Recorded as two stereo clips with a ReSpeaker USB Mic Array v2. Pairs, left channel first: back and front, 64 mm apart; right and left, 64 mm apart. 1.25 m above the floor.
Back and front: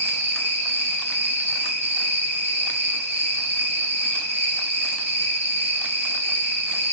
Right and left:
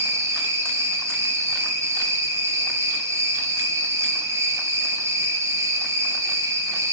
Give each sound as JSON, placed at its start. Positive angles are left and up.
{"t": 0.0, "sound": "an insect", "azimuth_deg": 50, "distance_m": 6.5}